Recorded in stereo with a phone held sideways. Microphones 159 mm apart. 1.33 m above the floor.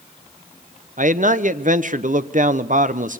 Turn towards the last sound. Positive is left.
turn(degrees=-60)  # may be behind; listen again after turning